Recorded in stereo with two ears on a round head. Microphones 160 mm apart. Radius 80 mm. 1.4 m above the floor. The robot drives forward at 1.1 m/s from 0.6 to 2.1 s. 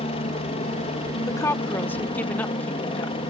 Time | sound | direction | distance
0.0 | a helicopter | 35° left (ahead or behind) | ?
1.3 | a woman speaking | 20° left (ahead or behind) | ?